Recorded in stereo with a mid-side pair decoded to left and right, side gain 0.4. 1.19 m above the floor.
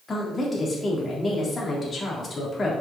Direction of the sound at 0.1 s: 40° left.